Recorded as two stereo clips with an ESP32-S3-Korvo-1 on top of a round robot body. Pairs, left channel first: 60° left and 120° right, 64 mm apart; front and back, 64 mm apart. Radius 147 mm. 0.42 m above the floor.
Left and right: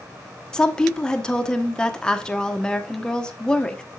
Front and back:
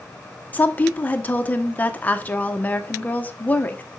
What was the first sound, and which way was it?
A woman speaking, straight ahead.